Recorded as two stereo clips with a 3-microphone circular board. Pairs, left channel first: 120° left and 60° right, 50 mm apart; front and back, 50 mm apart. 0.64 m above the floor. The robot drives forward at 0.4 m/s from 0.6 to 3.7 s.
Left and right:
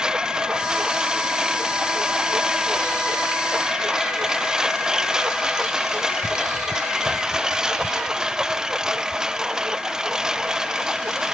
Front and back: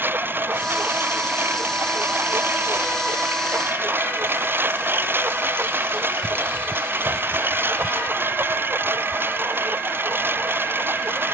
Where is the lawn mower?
135° right; by 11.3 s 140° right.